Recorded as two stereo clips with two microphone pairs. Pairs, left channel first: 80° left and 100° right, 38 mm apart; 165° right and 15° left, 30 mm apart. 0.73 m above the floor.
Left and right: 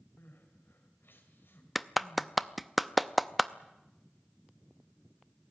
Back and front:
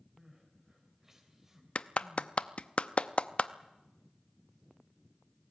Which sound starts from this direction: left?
Crying, at 0.2 s.